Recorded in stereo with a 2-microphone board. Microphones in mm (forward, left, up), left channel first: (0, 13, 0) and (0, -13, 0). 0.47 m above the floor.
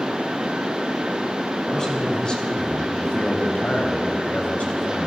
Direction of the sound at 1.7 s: 25° left (ahead or behind).